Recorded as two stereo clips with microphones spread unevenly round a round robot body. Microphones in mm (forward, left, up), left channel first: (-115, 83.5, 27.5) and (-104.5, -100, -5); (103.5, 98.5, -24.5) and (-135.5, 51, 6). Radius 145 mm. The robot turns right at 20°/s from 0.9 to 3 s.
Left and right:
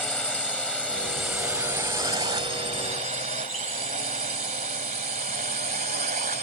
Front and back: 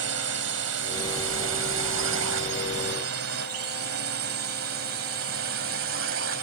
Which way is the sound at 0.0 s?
Straight behind.